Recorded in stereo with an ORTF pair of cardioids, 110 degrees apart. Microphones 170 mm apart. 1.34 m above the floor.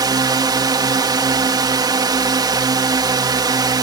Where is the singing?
No singing in this recording.